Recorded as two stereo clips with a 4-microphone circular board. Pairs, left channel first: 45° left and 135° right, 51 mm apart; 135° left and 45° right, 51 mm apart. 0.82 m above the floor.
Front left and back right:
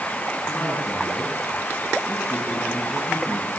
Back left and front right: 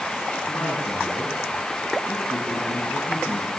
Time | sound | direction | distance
0.5 | a man speaking | 100° left | 7.5 m